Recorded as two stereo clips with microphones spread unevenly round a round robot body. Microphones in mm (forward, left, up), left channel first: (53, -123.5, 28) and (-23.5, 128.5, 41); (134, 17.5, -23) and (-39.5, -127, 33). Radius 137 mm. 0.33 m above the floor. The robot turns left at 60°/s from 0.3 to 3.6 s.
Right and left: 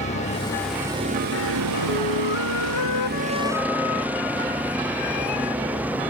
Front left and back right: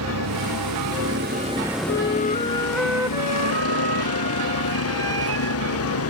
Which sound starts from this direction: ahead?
A flute, at 1.9 s.